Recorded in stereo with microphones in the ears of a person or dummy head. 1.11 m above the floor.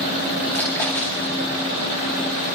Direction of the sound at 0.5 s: 5° left (ahead or behind).